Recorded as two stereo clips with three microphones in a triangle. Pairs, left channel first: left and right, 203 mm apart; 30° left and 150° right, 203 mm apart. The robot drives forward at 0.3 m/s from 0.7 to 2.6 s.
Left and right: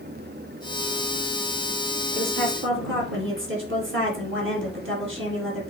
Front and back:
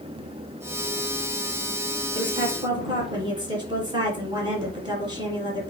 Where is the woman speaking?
80° right, 4.5 m.